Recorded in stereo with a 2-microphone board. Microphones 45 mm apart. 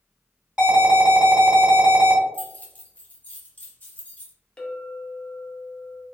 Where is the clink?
20° left (ahead or behind), 0.5 m.